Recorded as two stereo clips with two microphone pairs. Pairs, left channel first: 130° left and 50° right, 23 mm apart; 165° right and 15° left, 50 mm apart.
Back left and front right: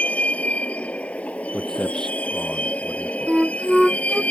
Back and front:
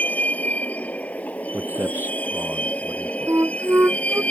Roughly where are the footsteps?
Ahead left.